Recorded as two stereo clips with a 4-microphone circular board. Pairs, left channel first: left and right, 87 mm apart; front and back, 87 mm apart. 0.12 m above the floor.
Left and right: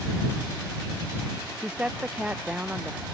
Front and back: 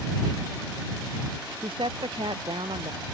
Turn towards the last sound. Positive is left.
turn(degrees=-170)